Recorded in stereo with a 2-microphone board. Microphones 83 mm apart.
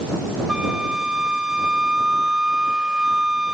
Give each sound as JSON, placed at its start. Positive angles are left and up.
{"t": 0.5, "sound": "a flute", "side_deg": -10}